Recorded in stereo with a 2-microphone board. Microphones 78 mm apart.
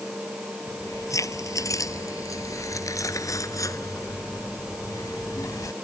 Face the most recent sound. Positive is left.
turn(degrees=45)  # may be behind; listen again after turning